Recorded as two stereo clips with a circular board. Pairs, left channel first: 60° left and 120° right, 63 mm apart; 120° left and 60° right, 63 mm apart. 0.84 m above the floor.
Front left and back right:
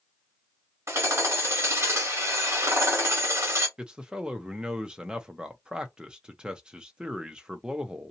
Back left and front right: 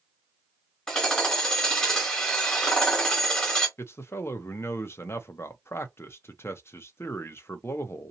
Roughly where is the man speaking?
Behind.